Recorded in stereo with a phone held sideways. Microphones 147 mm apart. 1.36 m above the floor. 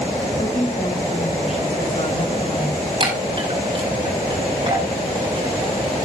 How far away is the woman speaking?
About 6.5 m.